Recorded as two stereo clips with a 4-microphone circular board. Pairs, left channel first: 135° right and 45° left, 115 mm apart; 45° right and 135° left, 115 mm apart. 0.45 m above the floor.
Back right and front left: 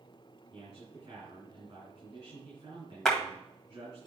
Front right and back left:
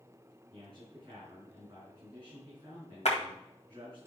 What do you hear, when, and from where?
0.5 s a man speaking: 85° left, 5 m
3.0 s a clap: 50° right, 1.8 m